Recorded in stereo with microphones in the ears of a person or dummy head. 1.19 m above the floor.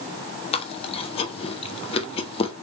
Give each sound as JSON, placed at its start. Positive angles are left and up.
{"t": 0.5, "sound": "chewing", "side_deg": 30, "distance_m": 0.6}